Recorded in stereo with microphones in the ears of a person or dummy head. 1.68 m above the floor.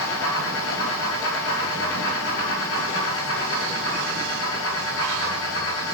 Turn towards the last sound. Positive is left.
turn(degrees=75)  # may be behind; listen again after turning